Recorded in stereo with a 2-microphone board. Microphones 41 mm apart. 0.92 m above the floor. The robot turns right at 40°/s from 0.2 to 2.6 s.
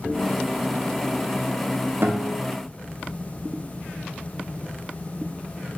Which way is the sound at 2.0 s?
65° right (ahead or behind).